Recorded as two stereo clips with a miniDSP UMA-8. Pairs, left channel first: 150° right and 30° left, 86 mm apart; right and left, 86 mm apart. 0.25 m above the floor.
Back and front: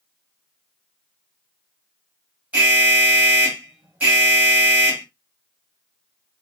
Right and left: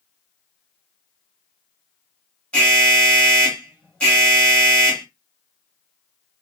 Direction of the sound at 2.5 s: 25° right.